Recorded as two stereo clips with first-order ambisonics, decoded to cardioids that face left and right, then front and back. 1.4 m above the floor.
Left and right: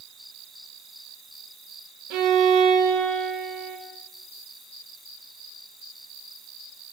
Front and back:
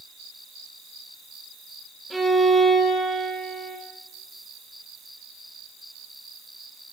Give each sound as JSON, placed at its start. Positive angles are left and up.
{"t": 2.1, "sound": "a violin", "azimuth_deg": -95, "distance_m": 0.8}